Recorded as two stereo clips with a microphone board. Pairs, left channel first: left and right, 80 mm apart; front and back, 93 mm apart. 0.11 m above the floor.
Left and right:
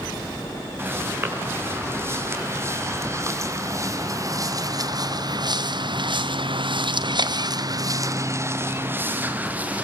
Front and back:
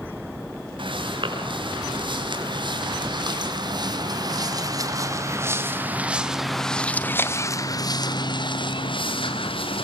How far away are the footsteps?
About 7 m.